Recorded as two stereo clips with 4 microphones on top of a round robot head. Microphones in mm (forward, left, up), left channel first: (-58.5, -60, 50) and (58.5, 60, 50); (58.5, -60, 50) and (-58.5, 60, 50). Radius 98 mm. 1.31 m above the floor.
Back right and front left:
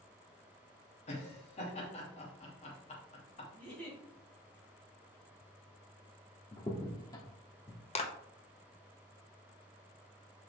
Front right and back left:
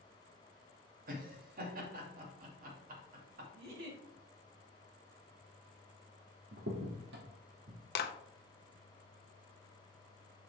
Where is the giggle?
145° left, 3 m.